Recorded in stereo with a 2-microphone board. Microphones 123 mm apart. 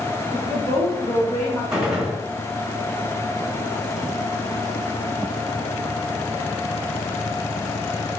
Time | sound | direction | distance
0.3 | a woman speaking | 25° left (ahead or behind) | 1.1 m
1.7 | a gunshot | 5° right (ahead or behind) | 2 m